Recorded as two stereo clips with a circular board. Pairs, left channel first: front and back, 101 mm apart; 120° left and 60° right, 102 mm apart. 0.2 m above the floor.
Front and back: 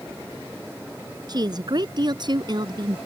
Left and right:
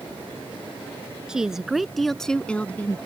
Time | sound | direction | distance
1.3 | a woman speaking | 140° right | ?